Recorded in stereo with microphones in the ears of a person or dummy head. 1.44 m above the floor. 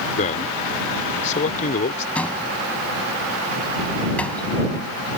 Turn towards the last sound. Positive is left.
turn(degrees=5)  # may be behind; listen again after turning